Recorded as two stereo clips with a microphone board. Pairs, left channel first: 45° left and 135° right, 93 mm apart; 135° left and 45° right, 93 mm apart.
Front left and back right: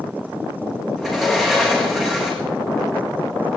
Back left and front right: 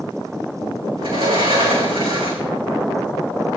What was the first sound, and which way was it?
A sliding door, 50° right.